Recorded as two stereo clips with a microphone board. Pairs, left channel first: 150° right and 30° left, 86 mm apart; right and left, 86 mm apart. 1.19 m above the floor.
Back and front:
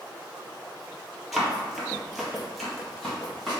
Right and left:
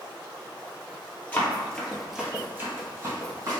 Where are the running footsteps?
55° right, 1.3 m; by 3.6 s 125° left, 2 m.